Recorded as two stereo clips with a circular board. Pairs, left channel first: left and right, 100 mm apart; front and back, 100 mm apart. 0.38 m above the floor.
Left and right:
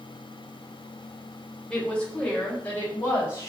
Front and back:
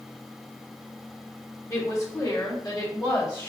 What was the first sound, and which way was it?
A woman speaking, 20° left.